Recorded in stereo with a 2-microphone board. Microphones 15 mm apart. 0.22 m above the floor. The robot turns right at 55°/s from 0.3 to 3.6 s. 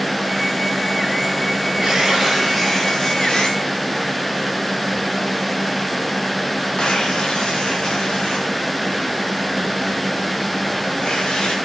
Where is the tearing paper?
45° right (ahead or behind), 7.5 m; by 11.6 s 55° left (ahead or behind), 7.5 m.